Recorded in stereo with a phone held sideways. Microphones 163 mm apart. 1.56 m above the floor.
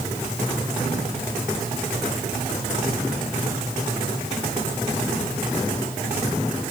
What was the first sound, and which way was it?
Only background noise.